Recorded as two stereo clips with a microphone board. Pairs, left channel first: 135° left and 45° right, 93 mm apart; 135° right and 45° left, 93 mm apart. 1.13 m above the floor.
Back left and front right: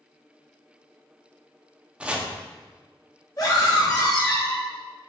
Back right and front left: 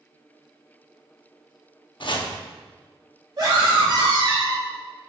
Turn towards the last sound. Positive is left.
turn(degrees=85)